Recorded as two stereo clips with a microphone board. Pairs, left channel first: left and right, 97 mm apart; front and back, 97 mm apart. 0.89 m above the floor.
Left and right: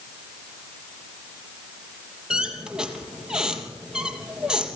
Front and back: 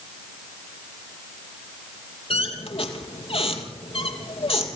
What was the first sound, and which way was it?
A squeak, 5° right.